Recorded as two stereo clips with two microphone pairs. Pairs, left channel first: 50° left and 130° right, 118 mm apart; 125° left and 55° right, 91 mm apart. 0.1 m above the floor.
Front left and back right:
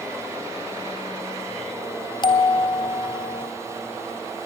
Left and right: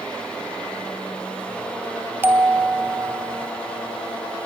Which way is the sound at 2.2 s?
5° left.